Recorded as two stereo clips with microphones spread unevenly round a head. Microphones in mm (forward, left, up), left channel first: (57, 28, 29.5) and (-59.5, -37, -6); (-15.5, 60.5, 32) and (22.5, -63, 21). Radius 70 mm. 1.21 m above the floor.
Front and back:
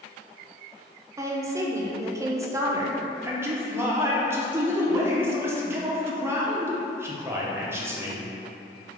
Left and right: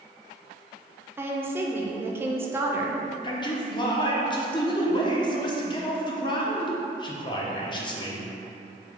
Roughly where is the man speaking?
Behind left.